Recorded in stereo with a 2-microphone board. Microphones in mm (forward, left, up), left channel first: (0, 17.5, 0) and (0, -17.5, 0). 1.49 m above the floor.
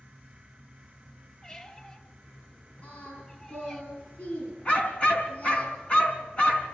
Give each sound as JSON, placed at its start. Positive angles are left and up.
{"t": 1.4, "sound": "a squeak", "side_deg": 25, "distance_m": 1.4}
{"t": 2.8, "sound": "singing", "side_deg": 50, "distance_m": 8.5}
{"t": 4.7, "sound": "a dog barking", "side_deg": 35, "distance_m": 3.5}